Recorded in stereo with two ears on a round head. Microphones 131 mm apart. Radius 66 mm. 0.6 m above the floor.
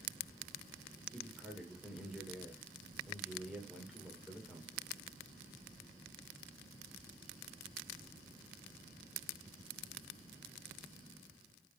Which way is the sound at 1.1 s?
5° right (ahead or behind).